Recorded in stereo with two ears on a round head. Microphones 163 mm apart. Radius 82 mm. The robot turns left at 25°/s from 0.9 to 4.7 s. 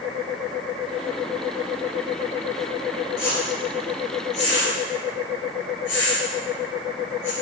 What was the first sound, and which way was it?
A whoosh, 60° left (ahead or behind).